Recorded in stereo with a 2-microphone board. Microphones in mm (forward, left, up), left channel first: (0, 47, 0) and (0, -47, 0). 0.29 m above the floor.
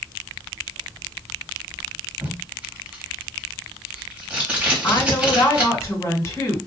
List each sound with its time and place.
2.2 s tape being pulled: 15° right (ahead or behind), 1.3 m
4.8 s a woman speaking: 35° left (ahead or behind), 1.9 m